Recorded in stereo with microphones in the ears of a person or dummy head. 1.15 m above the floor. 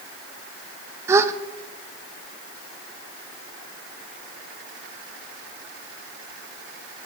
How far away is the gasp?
About 0.5 m.